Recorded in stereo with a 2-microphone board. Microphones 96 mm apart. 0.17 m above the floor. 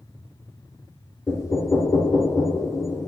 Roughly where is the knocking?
Left.